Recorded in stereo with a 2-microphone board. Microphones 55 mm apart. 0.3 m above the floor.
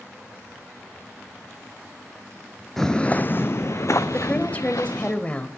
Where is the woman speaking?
25° left (ahead or behind), 1.0 m.